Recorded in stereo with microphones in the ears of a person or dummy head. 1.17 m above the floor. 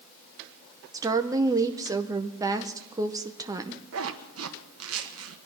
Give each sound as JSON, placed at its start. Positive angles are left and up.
{"t": 0.9, "sound": "a woman speaking", "side_deg": -15, "distance_m": 0.7}
{"t": 3.9, "sound": "a zipper", "side_deg": -70, "distance_m": 1.2}